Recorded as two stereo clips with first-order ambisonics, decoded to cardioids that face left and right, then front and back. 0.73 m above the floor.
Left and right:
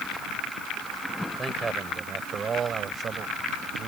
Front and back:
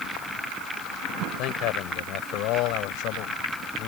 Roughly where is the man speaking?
Ahead.